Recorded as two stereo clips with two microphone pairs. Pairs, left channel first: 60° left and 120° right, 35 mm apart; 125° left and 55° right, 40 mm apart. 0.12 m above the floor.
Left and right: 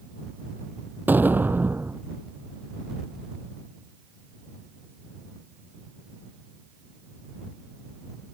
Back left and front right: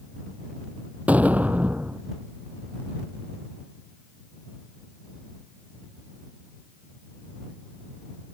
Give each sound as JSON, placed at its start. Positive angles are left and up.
{"t": 1.1, "sound": "an explosion", "azimuth_deg": -105}